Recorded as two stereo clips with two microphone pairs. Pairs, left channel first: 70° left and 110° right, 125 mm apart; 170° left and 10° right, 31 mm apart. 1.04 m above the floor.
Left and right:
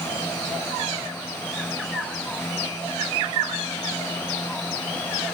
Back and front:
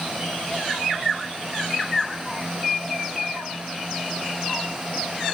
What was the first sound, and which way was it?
Only background noise.